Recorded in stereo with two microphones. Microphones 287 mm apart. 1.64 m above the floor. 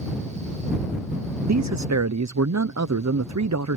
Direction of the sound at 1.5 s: 80° right.